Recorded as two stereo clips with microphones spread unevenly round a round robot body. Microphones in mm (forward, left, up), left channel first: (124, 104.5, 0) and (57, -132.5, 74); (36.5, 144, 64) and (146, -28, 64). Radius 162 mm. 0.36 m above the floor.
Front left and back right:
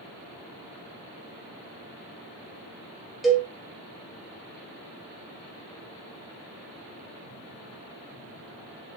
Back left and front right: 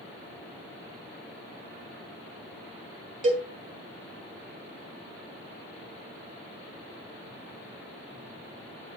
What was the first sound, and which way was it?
A cowbell, 10° right.